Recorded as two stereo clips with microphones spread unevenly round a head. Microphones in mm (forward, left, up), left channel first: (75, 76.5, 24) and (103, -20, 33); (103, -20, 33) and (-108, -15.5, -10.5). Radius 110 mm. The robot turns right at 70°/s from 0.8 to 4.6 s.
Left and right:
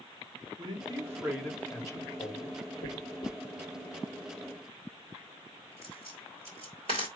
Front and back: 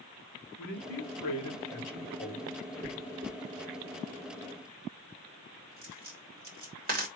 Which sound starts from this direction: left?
A dropped coin, at 2.8 s.